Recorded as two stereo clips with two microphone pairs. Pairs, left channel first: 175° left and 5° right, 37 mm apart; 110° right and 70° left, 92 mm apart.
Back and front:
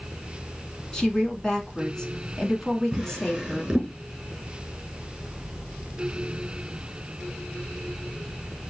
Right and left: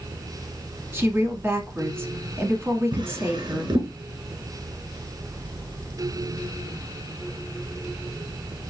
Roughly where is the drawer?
Ahead left.